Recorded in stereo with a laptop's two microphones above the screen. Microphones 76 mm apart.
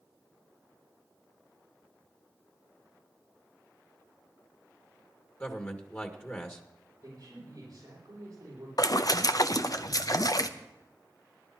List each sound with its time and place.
5.4 s a man speaking: 25° left (ahead or behind), 1.8 m
7.0 s a man speaking: 50° right (ahead or behind), 7.5 m
8.8 s a splash: 50° left (ahead or behind), 0.6 m